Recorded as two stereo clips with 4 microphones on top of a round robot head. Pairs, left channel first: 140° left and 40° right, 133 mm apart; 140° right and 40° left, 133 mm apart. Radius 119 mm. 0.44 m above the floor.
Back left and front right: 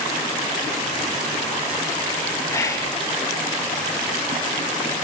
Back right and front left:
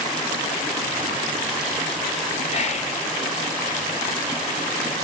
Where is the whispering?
155° right, 1.7 m.